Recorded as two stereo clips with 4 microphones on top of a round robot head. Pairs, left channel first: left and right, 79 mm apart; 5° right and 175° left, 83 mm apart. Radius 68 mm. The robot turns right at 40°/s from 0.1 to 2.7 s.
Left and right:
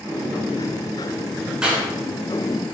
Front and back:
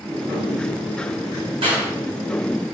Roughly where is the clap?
Behind.